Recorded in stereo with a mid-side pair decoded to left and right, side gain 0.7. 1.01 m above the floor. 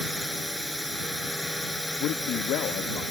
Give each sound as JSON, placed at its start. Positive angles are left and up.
{"t": 0.0, "sound": "a drone", "azimuth_deg": 5}
{"t": 2.0, "sound": "a man speaking", "azimuth_deg": 55}